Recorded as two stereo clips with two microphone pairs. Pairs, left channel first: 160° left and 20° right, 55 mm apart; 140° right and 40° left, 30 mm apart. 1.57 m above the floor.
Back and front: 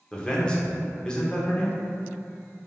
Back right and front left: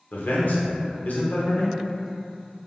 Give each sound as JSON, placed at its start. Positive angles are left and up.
{"t": 0.1, "sound": "a man speaking", "azimuth_deg": -125, "distance_m": 0.6}